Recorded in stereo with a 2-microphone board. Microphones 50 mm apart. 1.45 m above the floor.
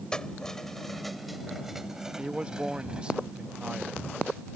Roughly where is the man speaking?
Right.